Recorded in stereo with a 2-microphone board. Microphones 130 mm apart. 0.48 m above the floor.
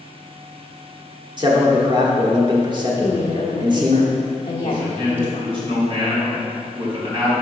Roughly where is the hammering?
I don't hear hammering.